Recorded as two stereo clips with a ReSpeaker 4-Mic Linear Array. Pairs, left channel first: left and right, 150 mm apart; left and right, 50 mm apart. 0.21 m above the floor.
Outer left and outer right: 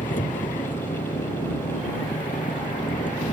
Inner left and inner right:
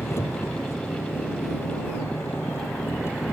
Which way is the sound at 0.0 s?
60° left (ahead or behind).